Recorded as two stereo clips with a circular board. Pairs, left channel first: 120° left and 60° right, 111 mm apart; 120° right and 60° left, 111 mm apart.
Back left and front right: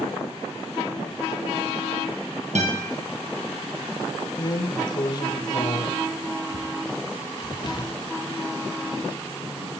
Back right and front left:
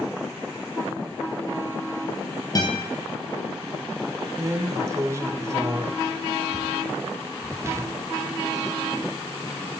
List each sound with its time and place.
2.5 s a guitar: 65° right, 1.9 m
4.4 s a drawer: 105° left, 0.6 m